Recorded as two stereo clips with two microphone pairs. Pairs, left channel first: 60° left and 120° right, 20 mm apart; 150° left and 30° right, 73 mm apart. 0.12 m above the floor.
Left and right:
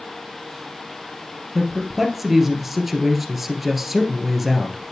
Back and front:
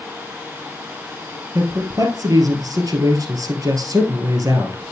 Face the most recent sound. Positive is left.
turn(degrees=-40)